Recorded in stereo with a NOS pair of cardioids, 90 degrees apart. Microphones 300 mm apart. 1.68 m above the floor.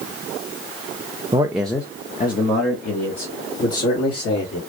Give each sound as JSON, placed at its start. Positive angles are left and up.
{"t": 1.3, "sound": "a man speaking", "azimuth_deg": -20, "distance_m": 0.5}